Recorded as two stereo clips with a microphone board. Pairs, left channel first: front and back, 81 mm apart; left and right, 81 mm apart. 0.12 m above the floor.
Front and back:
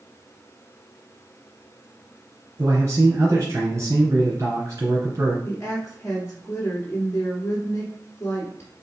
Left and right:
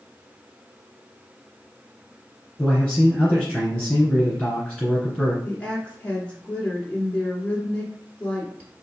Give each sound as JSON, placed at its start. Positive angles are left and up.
{"t": 2.6, "sound": "a man speaking", "azimuth_deg": 165, "distance_m": 2.0}
{"t": 5.5, "sound": "a woman speaking", "azimuth_deg": 25, "distance_m": 1.4}